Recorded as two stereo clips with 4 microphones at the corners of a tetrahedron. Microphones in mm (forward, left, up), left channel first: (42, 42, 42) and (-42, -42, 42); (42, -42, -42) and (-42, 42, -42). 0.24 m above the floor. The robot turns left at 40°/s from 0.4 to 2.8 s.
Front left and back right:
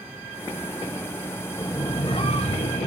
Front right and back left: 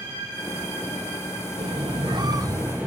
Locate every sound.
1.6 s a squeak: 110° left, 1.4 m; by 2.9 s 60° left, 1.4 m